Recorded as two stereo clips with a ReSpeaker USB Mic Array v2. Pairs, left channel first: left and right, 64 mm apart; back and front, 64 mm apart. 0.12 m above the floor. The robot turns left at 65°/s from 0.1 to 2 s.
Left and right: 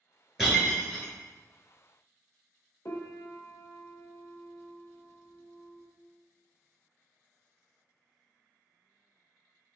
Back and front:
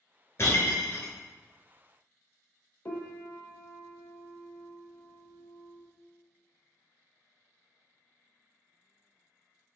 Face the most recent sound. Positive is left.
turn(degrees=130)